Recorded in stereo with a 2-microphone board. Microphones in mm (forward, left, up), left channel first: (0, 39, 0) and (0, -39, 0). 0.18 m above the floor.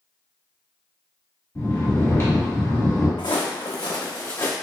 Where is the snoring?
35° left (ahead or behind), 1.4 m.